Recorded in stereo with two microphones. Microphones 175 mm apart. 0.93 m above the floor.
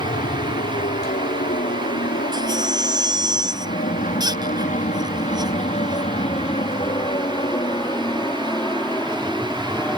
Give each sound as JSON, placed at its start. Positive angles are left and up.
{"t": 0.0, "sound": "an aircraft", "side_deg": 50}
{"t": 2.3, "sound": "a baby crying", "side_deg": -25}